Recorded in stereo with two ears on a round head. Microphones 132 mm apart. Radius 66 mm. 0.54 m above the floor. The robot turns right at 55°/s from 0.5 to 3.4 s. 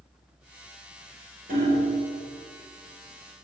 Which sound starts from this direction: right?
Hammering, at 1.5 s.